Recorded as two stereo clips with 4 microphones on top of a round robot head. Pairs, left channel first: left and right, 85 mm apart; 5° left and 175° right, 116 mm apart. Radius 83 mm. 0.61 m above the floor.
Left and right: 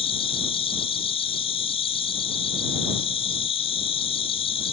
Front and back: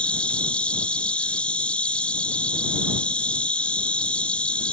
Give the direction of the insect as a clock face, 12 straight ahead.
9 o'clock.